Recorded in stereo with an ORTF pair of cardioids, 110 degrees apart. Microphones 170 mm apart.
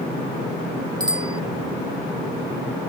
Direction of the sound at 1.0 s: 25° right.